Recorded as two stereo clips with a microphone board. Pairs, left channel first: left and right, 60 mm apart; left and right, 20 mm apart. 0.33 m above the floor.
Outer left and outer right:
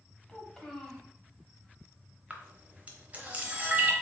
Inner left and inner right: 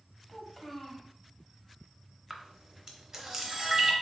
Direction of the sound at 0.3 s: 5° left (ahead or behind).